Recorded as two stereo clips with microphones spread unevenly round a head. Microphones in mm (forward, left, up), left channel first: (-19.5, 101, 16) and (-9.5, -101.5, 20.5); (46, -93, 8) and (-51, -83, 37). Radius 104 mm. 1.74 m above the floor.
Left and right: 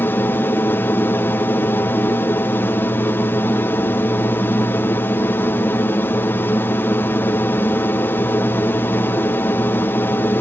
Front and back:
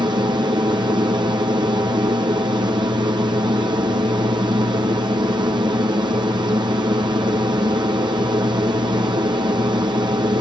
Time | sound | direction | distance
0.0 | an aircraft | 160° left | ?